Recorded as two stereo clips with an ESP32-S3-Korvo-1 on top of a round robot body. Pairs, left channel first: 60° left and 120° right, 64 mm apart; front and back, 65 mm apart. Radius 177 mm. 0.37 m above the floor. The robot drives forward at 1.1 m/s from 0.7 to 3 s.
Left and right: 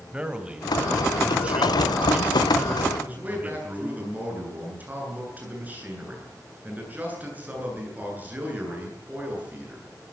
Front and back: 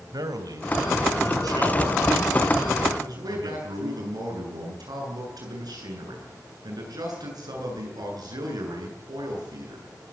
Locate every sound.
0.1 s a man speaking: 165° left, 3 m; by 3.9 s 175° left, 5.5 m
2.9 s a man speaking: 175° left, 9 m